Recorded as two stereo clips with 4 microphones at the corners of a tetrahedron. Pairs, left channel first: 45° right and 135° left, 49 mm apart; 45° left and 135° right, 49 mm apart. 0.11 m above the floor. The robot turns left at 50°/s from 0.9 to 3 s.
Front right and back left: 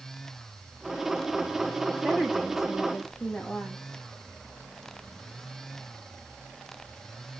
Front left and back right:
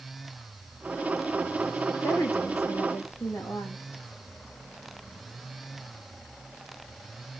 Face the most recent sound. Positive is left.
turn(degrees=25)